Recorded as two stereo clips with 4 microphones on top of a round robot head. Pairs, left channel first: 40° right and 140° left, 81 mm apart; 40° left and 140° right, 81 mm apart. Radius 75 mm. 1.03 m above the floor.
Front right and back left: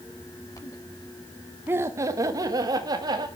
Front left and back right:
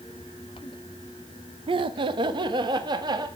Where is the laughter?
155° right, 0.6 m; by 3.3 s straight behind, 1.9 m.